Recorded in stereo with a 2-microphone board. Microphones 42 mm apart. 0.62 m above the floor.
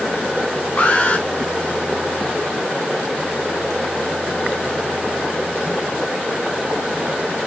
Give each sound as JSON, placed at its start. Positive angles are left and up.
{"t": 0.8, "sound": "an alarm", "side_deg": 40, "distance_m": 2.0}